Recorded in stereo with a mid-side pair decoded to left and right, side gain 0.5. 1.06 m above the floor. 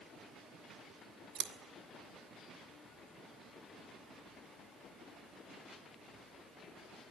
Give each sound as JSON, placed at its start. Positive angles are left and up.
{"t": 1.4, "sound": "scissors", "azimuth_deg": -60, "distance_m": 1.4}